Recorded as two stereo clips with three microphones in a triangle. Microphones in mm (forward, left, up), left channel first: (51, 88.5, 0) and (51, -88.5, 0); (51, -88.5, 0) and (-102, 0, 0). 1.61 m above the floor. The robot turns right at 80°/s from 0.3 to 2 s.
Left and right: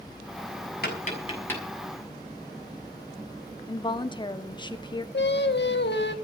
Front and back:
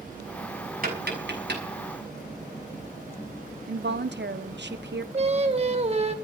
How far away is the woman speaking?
About 1.4 m.